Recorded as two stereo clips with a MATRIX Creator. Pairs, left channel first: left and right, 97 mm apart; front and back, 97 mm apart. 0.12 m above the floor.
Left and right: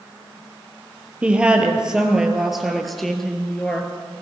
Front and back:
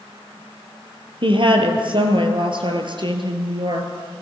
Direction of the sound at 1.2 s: 165° right.